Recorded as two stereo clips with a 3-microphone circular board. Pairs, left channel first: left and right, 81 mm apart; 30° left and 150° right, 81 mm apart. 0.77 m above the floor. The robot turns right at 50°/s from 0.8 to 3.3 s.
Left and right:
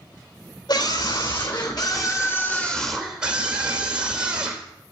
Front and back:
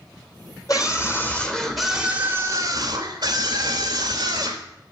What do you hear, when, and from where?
0.7 s a scream: 70° left, 3 m; by 4.7 s 165° right, 3 m